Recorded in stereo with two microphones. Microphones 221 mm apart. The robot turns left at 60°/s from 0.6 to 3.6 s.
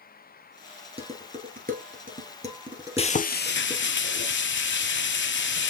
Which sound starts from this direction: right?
Dishes clattering, at 1.0 s.